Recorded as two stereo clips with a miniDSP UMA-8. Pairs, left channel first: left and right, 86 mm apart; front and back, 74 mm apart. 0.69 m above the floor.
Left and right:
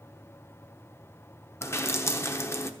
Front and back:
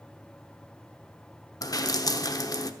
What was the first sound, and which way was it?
Dripping, 30° left.